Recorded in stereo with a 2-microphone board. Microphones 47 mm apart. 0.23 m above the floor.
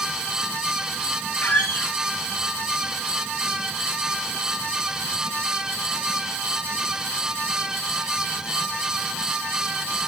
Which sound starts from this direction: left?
A squeak, at 1.4 s.